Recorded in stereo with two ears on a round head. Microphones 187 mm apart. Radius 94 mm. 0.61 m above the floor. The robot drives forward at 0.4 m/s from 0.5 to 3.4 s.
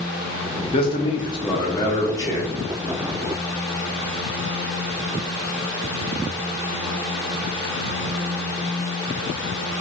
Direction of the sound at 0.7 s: 25° left (ahead or behind).